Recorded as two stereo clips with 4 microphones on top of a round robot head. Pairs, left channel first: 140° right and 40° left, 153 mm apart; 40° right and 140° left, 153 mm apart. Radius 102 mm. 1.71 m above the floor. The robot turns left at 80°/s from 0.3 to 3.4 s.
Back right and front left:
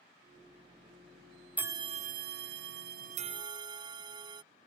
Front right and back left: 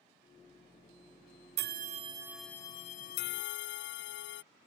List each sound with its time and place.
1.6 s a bell: 120° left; by 4.4 s 25° right